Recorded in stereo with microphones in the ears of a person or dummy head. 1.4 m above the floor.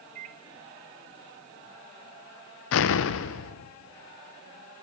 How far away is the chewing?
No chewing in this recording.